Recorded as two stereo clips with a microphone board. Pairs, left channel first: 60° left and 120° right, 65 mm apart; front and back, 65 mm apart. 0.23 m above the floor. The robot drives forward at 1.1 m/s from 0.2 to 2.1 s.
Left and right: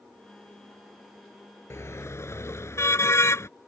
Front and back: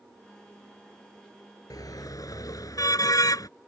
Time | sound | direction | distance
1.7 | a car horn | 15° left | ?